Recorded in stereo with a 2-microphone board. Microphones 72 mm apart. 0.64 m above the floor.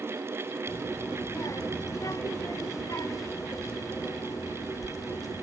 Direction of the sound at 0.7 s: 50° left (ahead or behind).